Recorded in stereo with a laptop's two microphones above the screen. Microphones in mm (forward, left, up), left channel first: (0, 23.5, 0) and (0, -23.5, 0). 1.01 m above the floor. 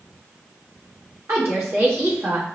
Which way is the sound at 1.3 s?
65° right (ahead or behind).